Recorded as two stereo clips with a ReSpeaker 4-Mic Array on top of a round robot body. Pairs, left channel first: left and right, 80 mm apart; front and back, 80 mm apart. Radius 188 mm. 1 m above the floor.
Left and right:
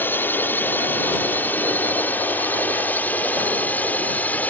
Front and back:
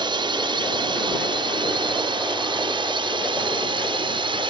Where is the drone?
155° left; by 4.5 s 160° left.